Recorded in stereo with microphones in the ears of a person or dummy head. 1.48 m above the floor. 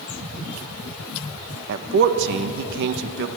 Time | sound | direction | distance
1.7 | a man speaking | 55° right (ahead or behind) | 1.5 m